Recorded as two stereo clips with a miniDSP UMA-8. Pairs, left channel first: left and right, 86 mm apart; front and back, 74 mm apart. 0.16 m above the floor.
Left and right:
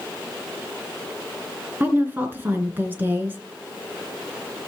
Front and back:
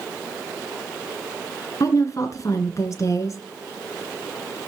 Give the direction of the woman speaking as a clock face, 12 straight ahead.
1 o'clock.